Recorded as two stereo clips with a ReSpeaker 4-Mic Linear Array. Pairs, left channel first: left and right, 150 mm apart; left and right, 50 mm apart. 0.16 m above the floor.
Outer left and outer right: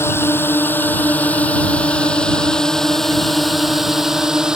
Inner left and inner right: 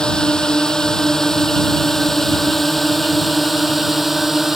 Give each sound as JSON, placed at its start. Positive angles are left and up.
{"t": 0.0, "sound": "a drone", "side_deg": 15}